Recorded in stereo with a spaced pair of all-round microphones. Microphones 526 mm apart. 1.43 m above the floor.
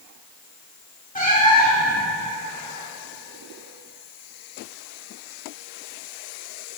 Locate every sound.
1.1 s a cat meowing: 15° left (ahead or behind), 1.5 m